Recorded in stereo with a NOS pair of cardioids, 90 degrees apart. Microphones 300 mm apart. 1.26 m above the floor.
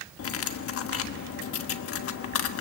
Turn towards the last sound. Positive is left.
turn(degrees=55)